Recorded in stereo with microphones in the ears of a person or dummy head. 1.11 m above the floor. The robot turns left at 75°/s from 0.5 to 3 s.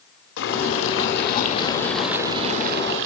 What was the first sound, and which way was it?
Boiling, 110° left.